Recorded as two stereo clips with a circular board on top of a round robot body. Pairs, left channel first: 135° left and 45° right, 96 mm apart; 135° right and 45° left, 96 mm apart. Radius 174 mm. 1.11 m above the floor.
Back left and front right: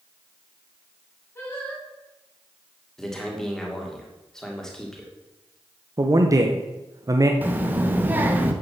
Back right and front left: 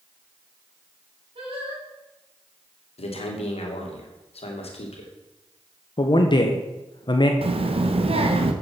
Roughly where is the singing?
Ahead left.